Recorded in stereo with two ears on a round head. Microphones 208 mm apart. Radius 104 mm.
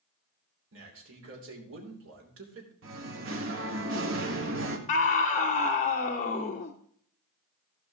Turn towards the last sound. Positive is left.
turn(degrees=35)  # may be behind; listen again after turning